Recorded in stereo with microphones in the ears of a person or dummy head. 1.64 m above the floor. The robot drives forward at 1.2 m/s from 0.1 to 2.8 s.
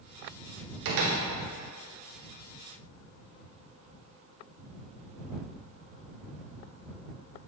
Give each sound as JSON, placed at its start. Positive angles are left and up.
{"t": 0.8, "sound": "a door slam", "side_deg": -55, "distance_m": 0.7}